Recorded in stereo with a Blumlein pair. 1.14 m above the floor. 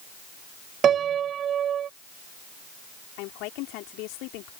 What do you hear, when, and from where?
0.8 s a piano: 25° right
3.2 s a woman speaking: 40° left